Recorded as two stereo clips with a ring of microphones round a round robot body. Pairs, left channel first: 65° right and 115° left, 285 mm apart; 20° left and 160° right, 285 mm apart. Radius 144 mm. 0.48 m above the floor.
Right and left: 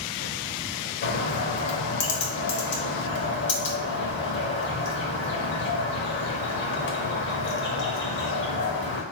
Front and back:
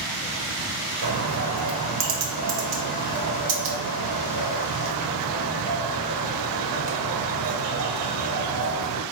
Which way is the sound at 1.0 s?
120° right.